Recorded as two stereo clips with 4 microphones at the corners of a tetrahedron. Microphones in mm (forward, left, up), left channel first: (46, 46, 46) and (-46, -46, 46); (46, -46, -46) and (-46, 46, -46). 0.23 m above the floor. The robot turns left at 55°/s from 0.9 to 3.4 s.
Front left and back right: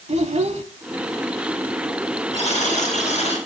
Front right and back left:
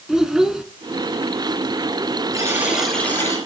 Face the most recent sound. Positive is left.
turn(degrees=15)